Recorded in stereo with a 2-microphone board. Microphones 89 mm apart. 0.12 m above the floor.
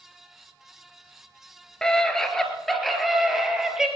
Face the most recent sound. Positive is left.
turn(degrees=-5)  # may be behind; listen again after turning